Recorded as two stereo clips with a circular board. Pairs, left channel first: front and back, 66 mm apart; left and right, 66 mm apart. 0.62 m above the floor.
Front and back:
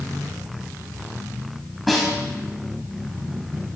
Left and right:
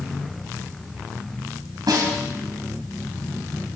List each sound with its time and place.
1.9 s a snare drum: 90° right, 2.5 m